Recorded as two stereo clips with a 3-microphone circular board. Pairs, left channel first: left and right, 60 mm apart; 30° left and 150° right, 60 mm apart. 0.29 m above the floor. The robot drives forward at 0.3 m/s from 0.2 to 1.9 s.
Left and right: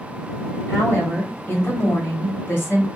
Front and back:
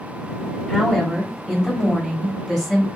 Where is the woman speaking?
115° left, 1.3 m; by 2.9 s 135° left, 1.4 m.